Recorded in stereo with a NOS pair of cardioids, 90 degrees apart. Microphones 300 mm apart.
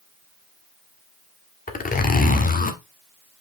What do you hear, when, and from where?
1.7 s a zipper: 30° left, 1.6 m